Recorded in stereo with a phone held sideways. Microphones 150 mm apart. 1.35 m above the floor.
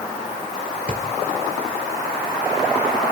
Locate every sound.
0.9 s a drawer: 50° right (ahead or behind), 1.5 m